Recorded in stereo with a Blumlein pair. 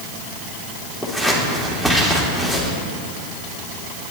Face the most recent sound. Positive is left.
turn(degrees=5)